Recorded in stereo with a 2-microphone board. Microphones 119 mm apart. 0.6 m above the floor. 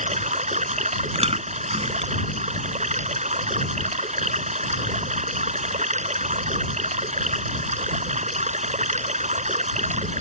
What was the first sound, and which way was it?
Running water, 85° right.